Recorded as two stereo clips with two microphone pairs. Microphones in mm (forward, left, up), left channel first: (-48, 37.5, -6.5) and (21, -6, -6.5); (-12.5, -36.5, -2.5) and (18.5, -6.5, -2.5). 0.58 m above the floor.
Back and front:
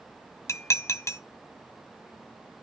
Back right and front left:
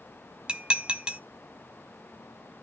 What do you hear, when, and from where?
0.5 s dishes clattering: 110° left, 0.8 m